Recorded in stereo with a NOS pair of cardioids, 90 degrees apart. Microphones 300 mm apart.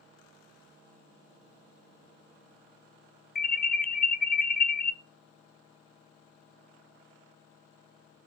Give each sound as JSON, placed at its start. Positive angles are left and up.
{"t": 3.4, "sound": "an alarm", "azimuth_deg": 30, "distance_m": 1.0}